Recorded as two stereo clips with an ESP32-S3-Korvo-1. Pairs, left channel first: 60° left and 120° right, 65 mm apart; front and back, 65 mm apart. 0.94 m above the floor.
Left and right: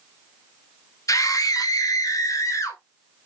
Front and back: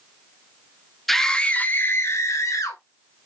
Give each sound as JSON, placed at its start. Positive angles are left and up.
{"t": 1.1, "sound": "a scream", "azimuth_deg": 85, "distance_m": 1.7}